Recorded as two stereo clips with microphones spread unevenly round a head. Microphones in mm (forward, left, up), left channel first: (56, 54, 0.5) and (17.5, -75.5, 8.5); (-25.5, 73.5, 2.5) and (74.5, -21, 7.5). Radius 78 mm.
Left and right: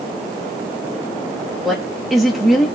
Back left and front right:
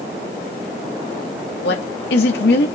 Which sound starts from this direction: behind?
A woman speaking, at 1.6 s.